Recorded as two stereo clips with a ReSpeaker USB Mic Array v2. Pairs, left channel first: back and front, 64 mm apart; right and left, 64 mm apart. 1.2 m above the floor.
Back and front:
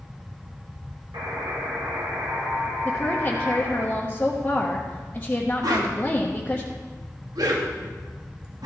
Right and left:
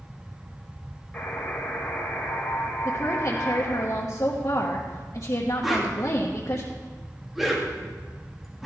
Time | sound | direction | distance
1.1 | a buzzer | 15° right | 3.5 m
2.9 | a woman speaking | 115° right | 1.2 m
5.6 | a whoosh | 5° left | 1.4 m